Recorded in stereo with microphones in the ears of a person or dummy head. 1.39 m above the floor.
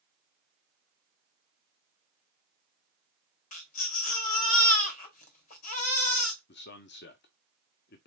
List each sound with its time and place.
3.5 s a baby crying: 40° left (ahead or behind), 1.3 m
6.5 s a man speaking: 50° left (ahead or behind), 0.6 m